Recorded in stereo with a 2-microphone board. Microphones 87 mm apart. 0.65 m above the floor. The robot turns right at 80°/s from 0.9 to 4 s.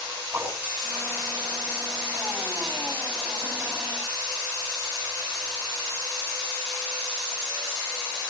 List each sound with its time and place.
0.3 s a whoosh: 20° right (ahead or behind), 6.5 m